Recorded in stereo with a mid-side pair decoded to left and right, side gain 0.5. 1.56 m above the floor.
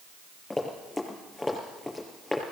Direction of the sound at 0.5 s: 20° left.